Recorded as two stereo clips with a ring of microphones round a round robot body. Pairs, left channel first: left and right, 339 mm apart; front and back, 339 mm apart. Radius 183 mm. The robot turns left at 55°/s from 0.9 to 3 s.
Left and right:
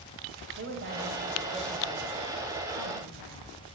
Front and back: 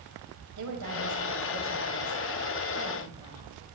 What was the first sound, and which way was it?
A woman speaking, 140° right.